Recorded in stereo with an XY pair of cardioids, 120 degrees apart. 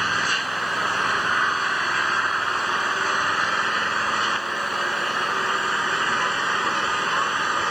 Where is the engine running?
5° right.